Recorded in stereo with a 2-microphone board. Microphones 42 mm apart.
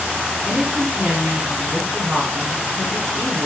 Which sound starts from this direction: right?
A woman speaking, at 0.4 s.